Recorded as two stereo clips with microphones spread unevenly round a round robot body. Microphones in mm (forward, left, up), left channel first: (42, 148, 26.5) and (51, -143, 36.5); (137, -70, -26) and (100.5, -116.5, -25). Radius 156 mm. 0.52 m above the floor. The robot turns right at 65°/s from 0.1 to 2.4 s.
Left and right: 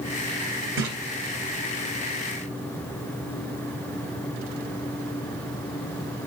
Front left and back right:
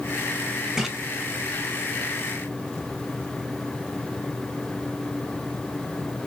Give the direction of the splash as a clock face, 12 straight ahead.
2 o'clock.